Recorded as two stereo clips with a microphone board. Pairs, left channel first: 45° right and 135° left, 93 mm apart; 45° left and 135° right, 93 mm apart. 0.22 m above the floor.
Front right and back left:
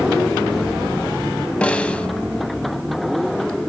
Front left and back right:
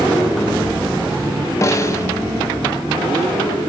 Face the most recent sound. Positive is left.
turn(degrees=25)